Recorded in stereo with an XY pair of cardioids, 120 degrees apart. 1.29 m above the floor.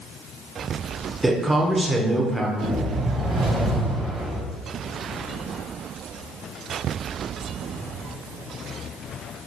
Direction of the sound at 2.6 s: 70° right.